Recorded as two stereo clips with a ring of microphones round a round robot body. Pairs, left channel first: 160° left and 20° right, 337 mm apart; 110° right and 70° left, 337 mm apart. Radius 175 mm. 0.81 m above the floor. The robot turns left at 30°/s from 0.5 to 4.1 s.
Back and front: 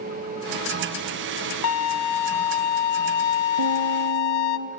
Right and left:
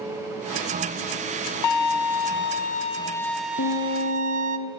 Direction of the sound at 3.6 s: 55° right.